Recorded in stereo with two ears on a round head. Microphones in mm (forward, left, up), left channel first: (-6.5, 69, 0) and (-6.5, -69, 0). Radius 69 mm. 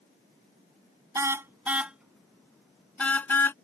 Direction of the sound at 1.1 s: 20° right (ahead or behind).